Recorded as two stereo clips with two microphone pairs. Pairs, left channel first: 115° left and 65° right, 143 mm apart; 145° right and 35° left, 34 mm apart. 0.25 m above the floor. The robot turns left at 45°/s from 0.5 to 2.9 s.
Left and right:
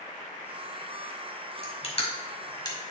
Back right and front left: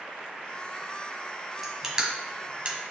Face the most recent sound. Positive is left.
turn(degrees=55)